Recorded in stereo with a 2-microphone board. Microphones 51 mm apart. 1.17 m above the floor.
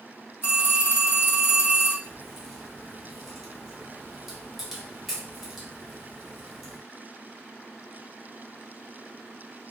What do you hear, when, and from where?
0.4 s a phone ringing: 60° left (ahead or behind), 1.3 m
2.0 s a crack: 5° left (ahead or behind), 1.0 m